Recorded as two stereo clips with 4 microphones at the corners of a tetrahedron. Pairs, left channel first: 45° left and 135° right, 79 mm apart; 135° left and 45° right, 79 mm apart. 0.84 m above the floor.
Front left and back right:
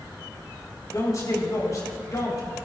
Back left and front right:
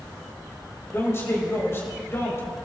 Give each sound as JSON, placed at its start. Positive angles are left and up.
{"t": 0.9, "sound": "a man speaking", "azimuth_deg": 85, "distance_m": 3.5}